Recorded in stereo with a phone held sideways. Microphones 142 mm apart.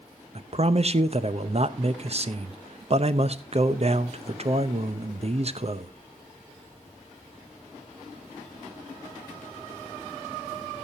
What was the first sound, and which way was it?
A man speaking, 45° right (ahead or behind).